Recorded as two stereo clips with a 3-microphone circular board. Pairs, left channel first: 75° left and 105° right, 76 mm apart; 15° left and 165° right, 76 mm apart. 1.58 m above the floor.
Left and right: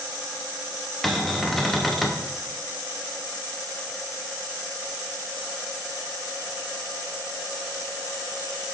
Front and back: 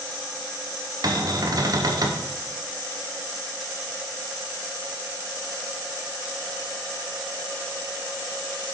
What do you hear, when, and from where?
1.0 s a cupboard door: 165° left, 0.7 m